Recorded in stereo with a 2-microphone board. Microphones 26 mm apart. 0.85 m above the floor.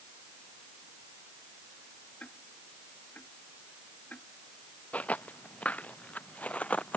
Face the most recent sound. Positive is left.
turn(degrees=65)  # may be behind; listen again after turning